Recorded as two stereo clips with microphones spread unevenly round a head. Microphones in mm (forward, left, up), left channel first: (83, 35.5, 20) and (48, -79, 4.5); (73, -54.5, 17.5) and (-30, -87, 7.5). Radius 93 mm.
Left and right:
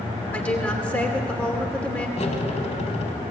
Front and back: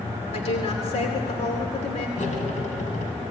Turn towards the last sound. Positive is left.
turn(degrees=45)